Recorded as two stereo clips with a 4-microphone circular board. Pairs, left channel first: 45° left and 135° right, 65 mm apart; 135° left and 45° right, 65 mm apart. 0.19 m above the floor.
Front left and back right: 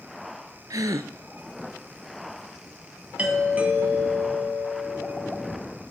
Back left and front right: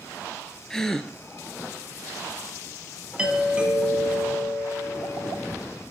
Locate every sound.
0.7 s a gasp: 145° right, 0.6 m
3.2 s a doorbell: 95° right, 1.8 m